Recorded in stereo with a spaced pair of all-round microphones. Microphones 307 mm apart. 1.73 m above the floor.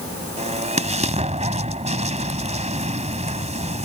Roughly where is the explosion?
Right.